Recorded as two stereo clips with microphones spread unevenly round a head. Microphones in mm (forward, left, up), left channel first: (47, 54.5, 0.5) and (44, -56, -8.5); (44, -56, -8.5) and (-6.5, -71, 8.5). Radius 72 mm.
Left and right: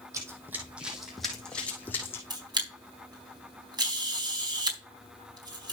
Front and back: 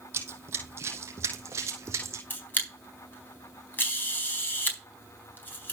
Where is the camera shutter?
40° right, 4 m.